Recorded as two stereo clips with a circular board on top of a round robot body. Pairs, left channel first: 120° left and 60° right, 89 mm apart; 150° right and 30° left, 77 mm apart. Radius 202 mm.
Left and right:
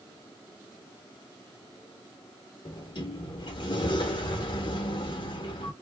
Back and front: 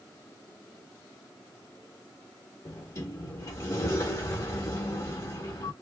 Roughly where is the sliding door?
Behind left.